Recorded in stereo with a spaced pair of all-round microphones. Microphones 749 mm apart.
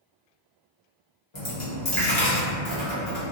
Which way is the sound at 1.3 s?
40° left (ahead or behind).